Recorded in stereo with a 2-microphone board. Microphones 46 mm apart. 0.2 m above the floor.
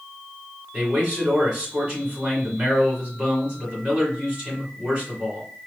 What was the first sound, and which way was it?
A man speaking, 20° right (ahead or behind).